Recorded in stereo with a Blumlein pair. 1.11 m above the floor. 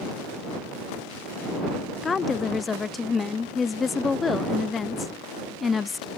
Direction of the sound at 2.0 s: 15° left.